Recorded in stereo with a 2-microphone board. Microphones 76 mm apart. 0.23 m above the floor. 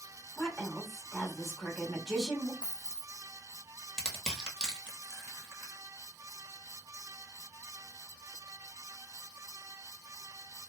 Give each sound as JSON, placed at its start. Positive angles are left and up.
{"t": 0.4, "sound": "a woman speaking", "side_deg": -5, "distance_m": 1.5}
{"t": 2.6, "sound": "a dropped coin", "side_deg": 10, "distance_m": 0.6}
{"t": 4.0, "sound": "crushing", "side_deg": -10, "distance_m": 1.0}